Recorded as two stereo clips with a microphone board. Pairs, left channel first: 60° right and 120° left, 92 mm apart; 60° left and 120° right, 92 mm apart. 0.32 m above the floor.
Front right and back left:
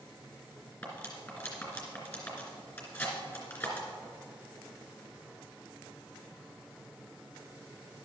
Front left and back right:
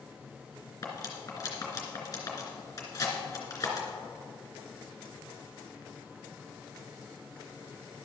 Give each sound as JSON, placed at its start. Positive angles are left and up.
{"t": 0.8, "sound": "cutlery clinking", "azimuth_deg": 5, "distance_m": 2.5}